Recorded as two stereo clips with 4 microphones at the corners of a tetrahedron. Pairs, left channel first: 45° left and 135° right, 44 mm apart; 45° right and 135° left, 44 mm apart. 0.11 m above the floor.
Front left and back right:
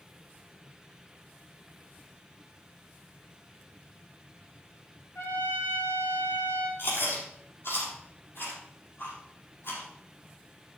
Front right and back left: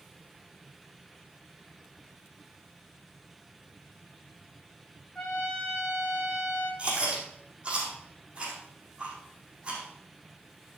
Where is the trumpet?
30° left, 6 m.